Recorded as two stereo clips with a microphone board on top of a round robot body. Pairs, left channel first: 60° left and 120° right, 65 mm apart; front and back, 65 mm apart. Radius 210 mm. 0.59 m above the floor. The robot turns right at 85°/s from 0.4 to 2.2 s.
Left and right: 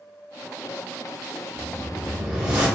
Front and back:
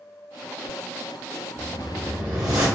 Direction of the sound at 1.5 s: 115° left.